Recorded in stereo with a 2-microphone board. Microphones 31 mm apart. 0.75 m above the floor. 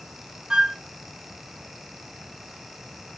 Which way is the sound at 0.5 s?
25° right (ahead or behind).